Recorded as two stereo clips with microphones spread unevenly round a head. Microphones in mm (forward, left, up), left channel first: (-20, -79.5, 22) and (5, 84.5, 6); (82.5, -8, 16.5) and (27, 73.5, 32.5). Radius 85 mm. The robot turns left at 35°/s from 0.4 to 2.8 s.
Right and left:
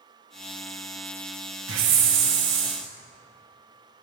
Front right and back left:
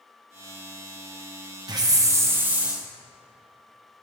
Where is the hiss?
80° left, 1.0 m; by 2.8 s 40° left, 1.0 m.